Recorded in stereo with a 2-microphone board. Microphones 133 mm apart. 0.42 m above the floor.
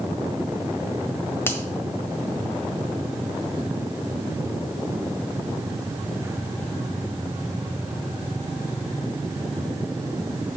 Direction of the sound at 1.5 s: 15° left (ahead or behind).